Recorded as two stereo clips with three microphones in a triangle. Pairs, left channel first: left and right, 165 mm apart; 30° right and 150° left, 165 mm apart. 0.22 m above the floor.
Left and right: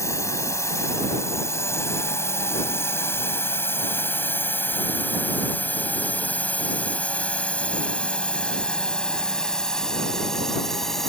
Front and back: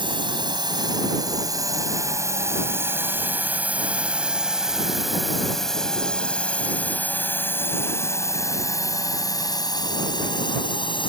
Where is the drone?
140° left; by 11.1 s 5° left.